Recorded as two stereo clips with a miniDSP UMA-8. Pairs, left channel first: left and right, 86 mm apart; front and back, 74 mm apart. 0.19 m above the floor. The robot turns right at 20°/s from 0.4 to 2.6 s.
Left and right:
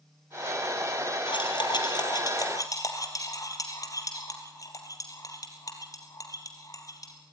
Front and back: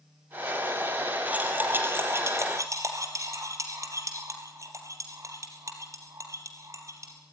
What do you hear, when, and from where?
1.3 s cutlery clinking: 110° left, 3 m; by 7.1 s 140° left, 3 m